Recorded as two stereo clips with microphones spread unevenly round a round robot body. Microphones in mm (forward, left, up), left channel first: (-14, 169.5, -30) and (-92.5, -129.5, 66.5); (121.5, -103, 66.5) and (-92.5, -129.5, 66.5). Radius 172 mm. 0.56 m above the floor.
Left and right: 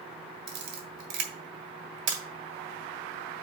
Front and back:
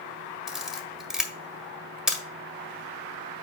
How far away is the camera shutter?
About 1.7 m.